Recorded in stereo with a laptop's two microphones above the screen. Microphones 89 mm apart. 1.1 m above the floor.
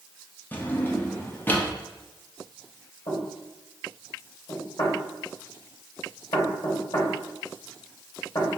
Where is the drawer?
20° left (ahead or behind), 0.6 m.